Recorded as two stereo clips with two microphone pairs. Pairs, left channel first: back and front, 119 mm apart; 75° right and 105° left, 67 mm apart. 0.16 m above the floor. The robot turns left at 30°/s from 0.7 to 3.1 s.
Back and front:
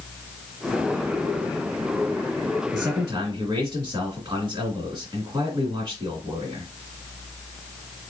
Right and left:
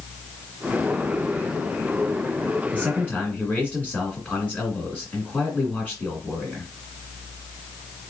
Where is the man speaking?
10° right, 1.9 m; by 6.7 s 20° right, 1.9 m.